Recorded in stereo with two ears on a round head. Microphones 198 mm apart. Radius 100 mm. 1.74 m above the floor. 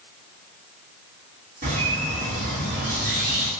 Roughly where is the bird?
Right.